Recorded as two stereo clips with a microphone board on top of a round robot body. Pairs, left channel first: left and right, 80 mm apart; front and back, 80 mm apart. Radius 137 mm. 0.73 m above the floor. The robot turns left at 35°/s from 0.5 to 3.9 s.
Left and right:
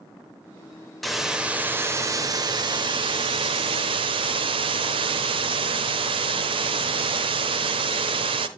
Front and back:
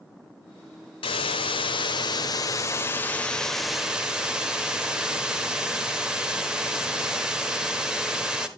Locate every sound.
1.0 s a hiss: straight ahead, 0.8 m; by 8.5 s 100° right, 0.8 m